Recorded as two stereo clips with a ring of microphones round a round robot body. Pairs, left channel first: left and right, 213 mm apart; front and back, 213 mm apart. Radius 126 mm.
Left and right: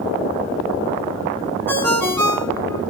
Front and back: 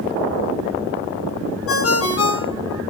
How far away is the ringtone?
About 3.5 m.